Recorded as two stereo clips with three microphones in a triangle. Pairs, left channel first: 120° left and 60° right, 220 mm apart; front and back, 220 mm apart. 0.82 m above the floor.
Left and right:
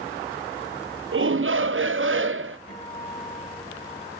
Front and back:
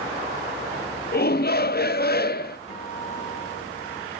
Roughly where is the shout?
Ahead right.